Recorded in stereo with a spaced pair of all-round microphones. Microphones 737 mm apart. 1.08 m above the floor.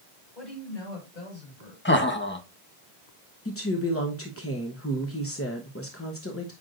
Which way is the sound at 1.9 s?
15° left (ahead or behind).